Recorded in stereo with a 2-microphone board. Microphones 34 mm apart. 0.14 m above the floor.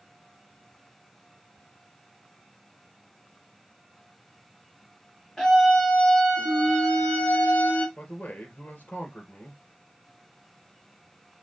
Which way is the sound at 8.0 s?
60° left (ahead or behind).